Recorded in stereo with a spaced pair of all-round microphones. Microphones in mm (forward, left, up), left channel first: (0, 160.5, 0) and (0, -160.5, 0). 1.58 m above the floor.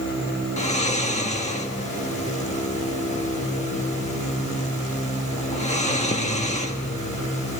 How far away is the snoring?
About 1.6 m.